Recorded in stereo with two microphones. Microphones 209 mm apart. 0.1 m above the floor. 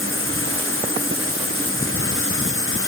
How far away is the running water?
About 1.3 m.